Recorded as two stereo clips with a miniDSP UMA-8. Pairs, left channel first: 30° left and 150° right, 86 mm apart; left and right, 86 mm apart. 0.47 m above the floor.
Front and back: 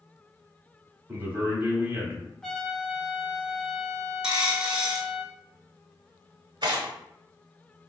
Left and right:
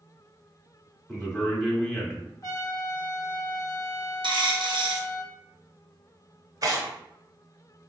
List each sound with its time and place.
1.1 s a man speaking: 165° left, 1.3 m
2.4 s a trumpet: 110° left, 0.7 m
4.2 s a dropped coin: 70° right, 1.6 m
6.6 s tearing paper: 130° right, 1.0 m